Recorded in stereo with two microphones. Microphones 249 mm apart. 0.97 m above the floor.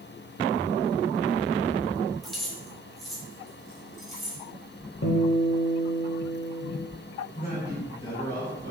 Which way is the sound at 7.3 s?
25° left (ahead or behind).